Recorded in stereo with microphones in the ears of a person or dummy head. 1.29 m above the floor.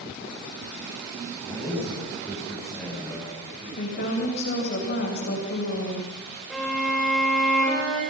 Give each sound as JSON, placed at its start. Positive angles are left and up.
{"t": 1.4, "sound": "a man speaking", "side_deg": 10, "distance_m": 8.5}
{"t": 3.8, "sound": "a woman speaking", "side_deg": 55, "distance_m": 6.5}
{"t": 6.5, "sound": "a violin", "side_deg": -5, "distance_m": 6.5}